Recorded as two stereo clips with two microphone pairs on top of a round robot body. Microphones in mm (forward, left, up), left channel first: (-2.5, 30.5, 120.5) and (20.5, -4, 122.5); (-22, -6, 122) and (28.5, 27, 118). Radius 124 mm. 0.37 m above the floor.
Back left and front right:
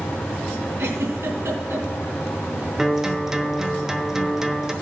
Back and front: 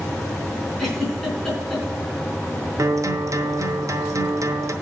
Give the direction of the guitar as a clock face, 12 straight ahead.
11 o'clock.